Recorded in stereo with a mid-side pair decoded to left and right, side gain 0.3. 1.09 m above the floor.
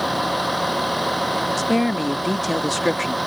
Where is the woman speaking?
10° left.